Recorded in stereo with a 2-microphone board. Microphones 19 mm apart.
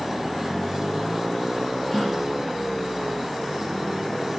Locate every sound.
1.9 s a gasp: 35° left (ahead or behind), 4.5 m